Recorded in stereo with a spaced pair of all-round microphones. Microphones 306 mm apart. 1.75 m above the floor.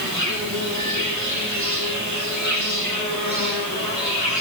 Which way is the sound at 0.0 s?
75° right (ahead or behind).